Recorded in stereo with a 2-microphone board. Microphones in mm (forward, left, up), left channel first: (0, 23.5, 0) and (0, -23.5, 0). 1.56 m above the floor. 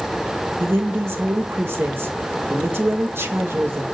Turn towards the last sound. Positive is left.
turn(degrees=-65)  # may be behind; listen again after turning